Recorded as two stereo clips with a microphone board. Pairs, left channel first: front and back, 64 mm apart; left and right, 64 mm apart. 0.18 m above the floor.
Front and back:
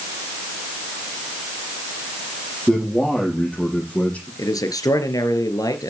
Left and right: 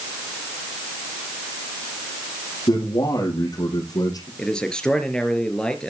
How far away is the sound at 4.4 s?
About 3 m.